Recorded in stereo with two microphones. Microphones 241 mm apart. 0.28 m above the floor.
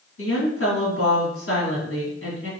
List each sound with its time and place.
0.2 s a woman speaking: 60° left (ahead or behind), 2.0 m